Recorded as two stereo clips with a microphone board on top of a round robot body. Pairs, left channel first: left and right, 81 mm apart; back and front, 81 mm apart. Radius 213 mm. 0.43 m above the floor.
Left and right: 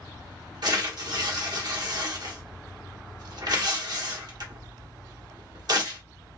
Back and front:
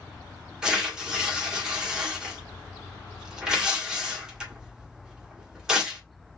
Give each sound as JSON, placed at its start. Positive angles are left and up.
{"t": 0.6, "sound": "tearing paper", "azimuth_deg": -80, "distance_m": 1.8}